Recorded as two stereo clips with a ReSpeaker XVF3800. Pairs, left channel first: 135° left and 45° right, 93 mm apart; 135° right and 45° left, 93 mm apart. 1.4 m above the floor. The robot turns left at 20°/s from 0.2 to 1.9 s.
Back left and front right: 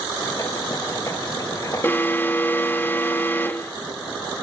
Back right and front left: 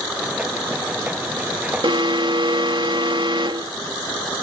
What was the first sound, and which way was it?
An alarm, 70° left.